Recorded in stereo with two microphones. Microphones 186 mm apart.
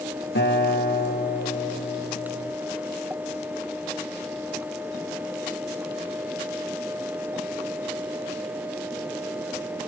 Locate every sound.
0.3 s a guitar: 75° left (ahead or behind), 5.5 m